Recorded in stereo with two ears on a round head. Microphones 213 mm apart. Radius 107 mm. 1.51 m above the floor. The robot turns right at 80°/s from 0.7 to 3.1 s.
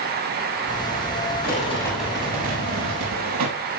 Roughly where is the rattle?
Behind left.